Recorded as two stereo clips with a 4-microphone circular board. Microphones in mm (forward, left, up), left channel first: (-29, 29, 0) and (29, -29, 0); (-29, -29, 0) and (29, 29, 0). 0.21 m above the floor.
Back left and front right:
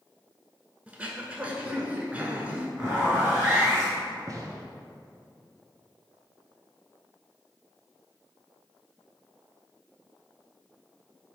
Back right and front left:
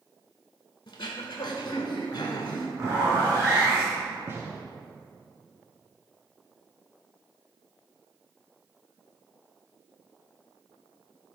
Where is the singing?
No singing in this recording.